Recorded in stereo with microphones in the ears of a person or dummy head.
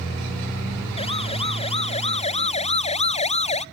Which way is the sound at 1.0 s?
30° left (ahead or behind).